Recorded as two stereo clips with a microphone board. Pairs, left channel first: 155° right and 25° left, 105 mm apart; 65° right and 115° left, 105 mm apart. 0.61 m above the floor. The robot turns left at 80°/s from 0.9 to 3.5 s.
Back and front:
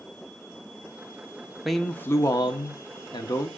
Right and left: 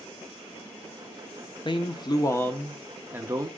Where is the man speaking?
65° right, 0.9 m; by 3.5 s 150° left, 0.9 m.